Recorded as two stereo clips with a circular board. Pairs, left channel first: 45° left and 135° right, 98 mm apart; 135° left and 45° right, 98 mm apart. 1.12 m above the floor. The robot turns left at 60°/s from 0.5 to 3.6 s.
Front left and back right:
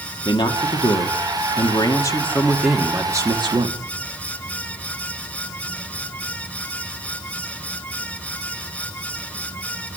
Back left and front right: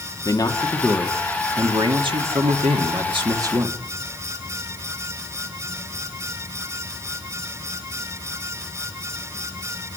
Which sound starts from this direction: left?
A man speaking, at 0.2 s.